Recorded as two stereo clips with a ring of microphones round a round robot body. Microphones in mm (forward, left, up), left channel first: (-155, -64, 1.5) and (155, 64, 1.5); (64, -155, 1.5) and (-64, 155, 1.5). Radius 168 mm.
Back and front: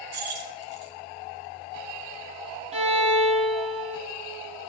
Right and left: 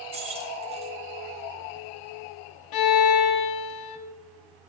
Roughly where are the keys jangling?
Ahead left.